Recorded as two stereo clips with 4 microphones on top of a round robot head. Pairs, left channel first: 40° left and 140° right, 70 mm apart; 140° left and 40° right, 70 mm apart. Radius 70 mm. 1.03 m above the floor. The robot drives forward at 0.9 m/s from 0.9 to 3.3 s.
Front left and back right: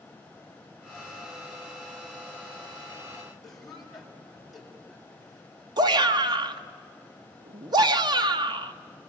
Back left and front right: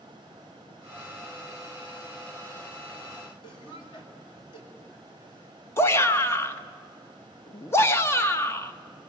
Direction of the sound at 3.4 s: 130° left.